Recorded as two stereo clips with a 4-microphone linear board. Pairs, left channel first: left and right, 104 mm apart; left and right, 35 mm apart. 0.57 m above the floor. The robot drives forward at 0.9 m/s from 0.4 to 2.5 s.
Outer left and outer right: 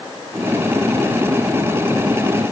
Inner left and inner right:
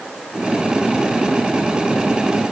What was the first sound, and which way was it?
Only background noise.